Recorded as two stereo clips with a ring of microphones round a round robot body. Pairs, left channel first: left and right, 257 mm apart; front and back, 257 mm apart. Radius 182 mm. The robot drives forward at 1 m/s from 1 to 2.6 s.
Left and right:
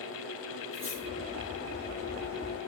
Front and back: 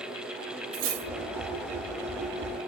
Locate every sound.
0.7 s cutlery clinking: 160° left, 1.5 m